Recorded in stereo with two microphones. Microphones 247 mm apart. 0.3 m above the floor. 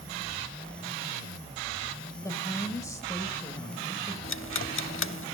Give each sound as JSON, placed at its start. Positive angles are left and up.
{"t": 2.2, "sound": "a woman speaking", "side_deg": 15, "distance_m": 1.1}
{"t": 4.2, "sound": "ticking", "side_deg": 55, "distance_m": 0.5}